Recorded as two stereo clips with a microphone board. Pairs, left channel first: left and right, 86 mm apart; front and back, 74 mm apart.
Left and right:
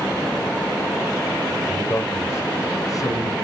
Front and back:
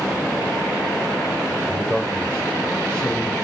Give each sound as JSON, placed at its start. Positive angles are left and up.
{"t": 1.7, "sound": "a man speaking", "azimuth_deg": 65, "distance_m": 1.3}